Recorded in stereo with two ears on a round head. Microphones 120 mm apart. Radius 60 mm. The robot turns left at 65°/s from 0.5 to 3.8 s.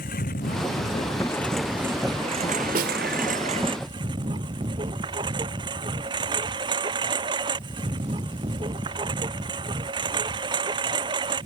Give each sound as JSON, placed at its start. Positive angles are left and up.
{"t": 0.0, "sound": "a lawn mower", "azimuth_deg": 70}
{"t": 2.8, "sound": "a snare drum", "side_deg": -65}